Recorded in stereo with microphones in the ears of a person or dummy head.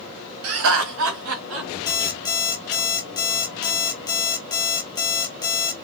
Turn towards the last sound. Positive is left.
turn(degrees=15)  # may be behind; listen again after turning